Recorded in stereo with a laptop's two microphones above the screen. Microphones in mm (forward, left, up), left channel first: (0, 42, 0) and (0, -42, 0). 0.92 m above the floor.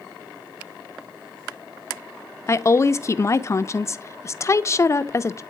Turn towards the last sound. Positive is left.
turn(degrees=35)  # may be behind; listen again after turning